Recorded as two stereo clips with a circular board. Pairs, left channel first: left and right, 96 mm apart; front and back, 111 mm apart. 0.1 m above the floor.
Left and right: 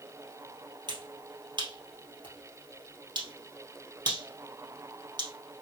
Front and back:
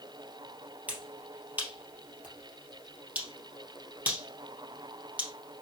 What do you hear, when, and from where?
0.9 s a finger snap: 110° right, 2.5 m